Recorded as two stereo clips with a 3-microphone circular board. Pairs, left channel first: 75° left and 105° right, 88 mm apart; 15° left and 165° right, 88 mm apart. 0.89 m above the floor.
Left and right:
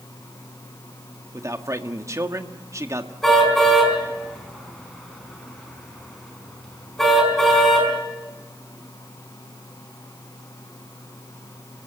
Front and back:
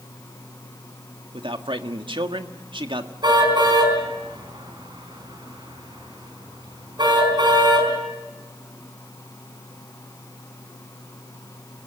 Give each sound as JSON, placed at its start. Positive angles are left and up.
{"t": 1.3, "sound": "a man speaking", "azimuth_deg": -155, "distance_m": 1.6}
{"t": 3.2, "sound": "a car horn", "azimuth_deg": 160, "distance_m": 5.0}